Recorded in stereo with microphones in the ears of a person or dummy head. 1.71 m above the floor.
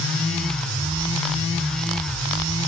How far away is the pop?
I don't hear a pop.